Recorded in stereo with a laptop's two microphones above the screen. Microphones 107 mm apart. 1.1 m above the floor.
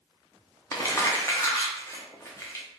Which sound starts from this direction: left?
Crumpling, at 0.7 s.